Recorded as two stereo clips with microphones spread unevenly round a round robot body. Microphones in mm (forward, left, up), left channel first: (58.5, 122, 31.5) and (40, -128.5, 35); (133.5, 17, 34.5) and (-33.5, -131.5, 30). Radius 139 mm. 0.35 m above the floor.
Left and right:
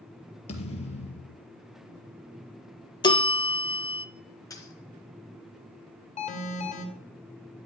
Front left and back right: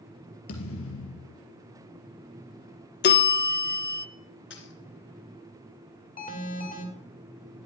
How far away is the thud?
About 2.5 m.